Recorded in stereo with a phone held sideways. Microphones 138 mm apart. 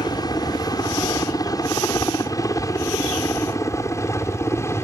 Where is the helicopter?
30° left (ahead or behind); by 4.8 s 20° left (ahead or behind).